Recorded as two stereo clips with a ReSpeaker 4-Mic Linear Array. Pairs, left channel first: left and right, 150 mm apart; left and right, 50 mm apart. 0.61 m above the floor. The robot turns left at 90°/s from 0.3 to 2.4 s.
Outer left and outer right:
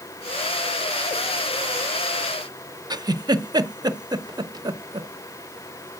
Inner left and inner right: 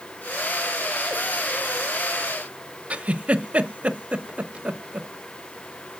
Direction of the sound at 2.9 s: 25° right (ahead or behind).